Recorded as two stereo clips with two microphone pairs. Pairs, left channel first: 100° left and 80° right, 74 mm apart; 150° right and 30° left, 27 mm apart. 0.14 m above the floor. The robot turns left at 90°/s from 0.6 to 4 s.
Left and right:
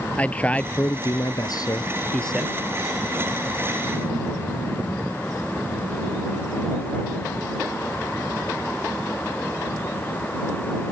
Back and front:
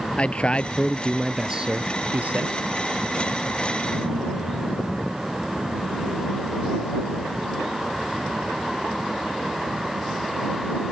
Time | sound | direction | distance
0.2 | a man speaking | 170° left | ?